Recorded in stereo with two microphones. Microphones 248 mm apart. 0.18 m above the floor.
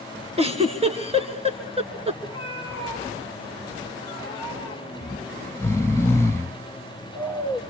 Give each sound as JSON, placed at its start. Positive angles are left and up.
{"t": 0.4, "sound": "a giggle", "side_deg": -25, "distance_m": 2.5}
{"t": 2.2, "sound": "a cat meowing", "side_deg": 20, "distance_m": 8.5}
{"t": 5.0, "sound": "snoring", "side_deg": 10, "distance_m": 0.6}